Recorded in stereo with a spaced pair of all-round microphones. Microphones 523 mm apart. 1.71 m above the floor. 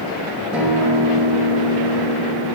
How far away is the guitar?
About 1.1 m.